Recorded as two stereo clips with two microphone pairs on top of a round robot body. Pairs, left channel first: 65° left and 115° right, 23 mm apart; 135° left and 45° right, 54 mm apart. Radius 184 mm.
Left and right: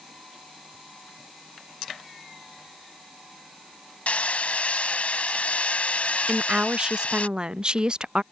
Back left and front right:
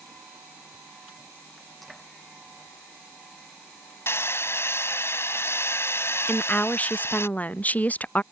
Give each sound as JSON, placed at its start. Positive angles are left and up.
{"t": 4.1, "sound": "hammering", "azimuth_deg": 90}
{"t": 6.3, "sound": "a woman speaking", "azimuth_deg": -170}